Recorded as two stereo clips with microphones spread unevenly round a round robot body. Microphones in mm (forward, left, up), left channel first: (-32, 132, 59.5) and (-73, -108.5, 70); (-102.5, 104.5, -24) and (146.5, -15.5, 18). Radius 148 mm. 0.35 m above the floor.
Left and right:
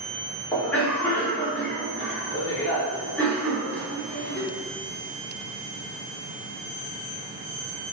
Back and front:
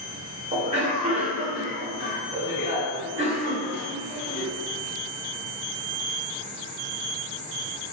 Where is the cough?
15° left, 0.8 m.